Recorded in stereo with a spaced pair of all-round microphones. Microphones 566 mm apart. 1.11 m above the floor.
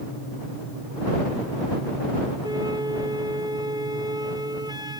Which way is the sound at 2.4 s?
5° right (ahead or behind).